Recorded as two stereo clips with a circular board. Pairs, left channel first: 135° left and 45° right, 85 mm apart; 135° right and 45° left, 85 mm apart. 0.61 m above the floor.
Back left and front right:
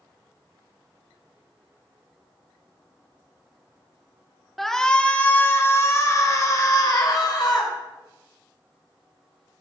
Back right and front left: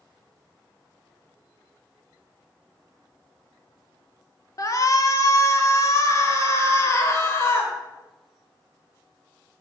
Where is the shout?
140° right, 1.5 m; by 7.7 s 170° left, 3.5 m.